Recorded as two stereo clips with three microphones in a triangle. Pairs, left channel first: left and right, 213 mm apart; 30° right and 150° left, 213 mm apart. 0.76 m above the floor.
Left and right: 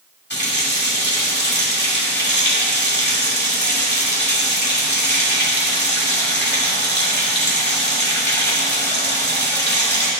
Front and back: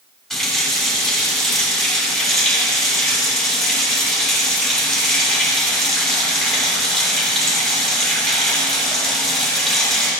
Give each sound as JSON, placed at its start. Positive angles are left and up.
{"t": 0.3, "sound": "a running tap", "azimuth_deg": 60, "distance_m": 1.8}